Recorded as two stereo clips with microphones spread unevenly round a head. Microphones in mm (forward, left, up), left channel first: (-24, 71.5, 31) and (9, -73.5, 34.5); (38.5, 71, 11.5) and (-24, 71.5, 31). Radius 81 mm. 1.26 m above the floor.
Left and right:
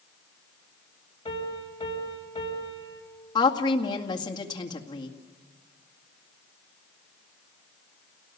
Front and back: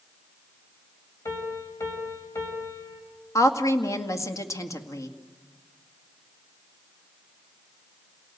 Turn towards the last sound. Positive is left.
turn(degrees=40)